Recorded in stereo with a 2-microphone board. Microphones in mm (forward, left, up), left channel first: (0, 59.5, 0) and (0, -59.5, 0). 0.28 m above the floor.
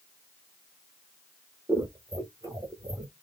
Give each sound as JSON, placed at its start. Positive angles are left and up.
{"t": 1.7, "sound": "scissors", "side_deg": -30, "distance_m": 0.9}